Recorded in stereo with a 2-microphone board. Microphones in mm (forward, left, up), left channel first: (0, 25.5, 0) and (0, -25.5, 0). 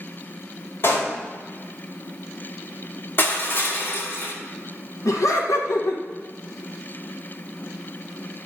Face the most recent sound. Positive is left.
turn(degrees=85)